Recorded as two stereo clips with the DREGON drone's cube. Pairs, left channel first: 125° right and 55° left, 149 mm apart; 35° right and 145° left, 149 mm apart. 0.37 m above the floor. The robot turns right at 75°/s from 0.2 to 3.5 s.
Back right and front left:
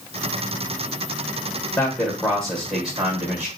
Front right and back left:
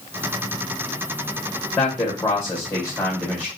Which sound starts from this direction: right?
A man speaking, at 1.8 s.